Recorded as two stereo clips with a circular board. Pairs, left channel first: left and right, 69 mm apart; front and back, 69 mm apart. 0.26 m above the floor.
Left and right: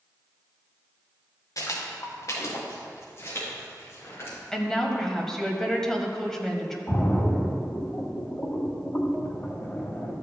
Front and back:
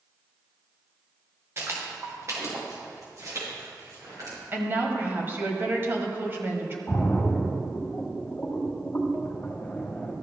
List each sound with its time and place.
1.6 s footsteps: 125° left, 2.5 m; by 4.4 s 145° left, 6 m
4.5 s a woman speaking: 165° left, 1.3 m
6.9 s a splash: 55° left, 1.4 m